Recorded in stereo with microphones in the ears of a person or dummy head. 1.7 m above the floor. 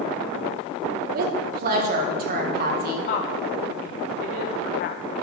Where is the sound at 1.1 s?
55° right (ahead or behind), 1.7 m.